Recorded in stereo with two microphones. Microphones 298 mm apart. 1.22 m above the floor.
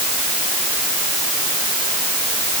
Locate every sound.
Only background noise.